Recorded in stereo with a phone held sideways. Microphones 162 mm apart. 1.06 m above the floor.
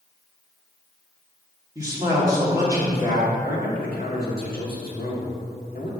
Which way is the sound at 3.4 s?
65° left (ahead or behind).